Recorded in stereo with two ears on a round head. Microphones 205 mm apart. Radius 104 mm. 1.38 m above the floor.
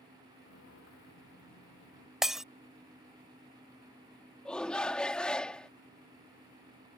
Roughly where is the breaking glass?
Centre.